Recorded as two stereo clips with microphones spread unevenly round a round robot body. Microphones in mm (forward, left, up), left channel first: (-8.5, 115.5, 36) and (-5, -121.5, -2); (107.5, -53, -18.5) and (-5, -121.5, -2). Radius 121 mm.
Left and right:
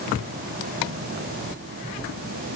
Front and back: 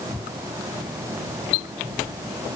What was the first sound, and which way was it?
Only background noise.